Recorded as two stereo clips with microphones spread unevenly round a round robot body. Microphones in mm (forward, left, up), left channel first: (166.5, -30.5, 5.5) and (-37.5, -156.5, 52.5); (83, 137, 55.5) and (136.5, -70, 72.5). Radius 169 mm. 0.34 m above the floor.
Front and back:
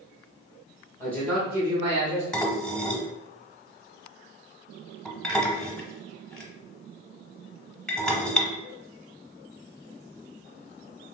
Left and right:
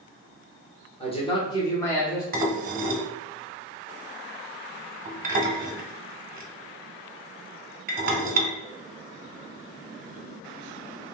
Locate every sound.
1.0 s a man speaking: 85° left, 1.0 m; by 2.2 s straight behind, 0.9 m
2.3 s dishes clattering: 40° right, 1.0 m